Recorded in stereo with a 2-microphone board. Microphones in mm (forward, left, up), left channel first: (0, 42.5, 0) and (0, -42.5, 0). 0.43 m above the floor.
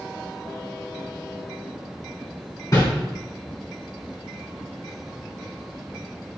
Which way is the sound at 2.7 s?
45° left (ahead or behind).